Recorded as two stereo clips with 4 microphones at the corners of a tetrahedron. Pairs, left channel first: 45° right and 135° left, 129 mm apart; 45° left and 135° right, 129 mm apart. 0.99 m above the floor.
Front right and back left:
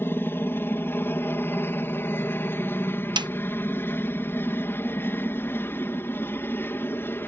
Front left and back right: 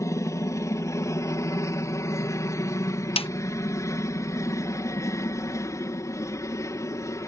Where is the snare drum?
85° left.